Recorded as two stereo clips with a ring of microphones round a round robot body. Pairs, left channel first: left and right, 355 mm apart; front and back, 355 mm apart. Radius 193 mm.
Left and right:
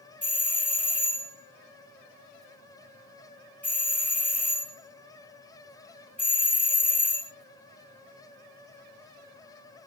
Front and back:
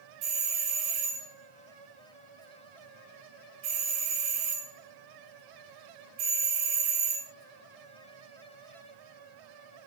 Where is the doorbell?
175° left, 1.1 m.